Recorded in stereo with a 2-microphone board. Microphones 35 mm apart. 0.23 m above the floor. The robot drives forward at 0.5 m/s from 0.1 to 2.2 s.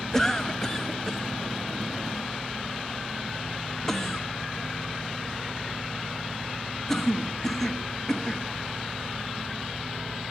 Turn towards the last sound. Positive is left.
turn(degrees=10)  # may be behind; listen again after turning